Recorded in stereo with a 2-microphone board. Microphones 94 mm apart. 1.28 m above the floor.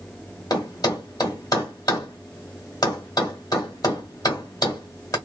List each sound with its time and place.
0.5 s a thud: 40° left (ahead or behind), 1.7 m